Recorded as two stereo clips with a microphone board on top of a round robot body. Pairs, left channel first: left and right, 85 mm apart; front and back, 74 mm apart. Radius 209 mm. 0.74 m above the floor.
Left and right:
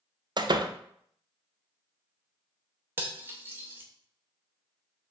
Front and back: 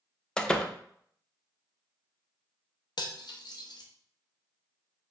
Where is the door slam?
75° right, 0.7 m.